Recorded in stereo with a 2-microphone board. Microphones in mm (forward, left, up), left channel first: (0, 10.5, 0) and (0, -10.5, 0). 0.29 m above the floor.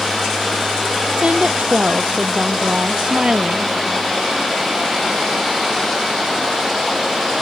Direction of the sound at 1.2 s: 65° right (ahead or behind).